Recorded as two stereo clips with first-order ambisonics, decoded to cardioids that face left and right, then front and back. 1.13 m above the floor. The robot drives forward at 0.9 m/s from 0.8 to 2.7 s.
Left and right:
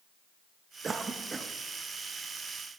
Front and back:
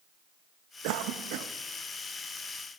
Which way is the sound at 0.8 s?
165° right.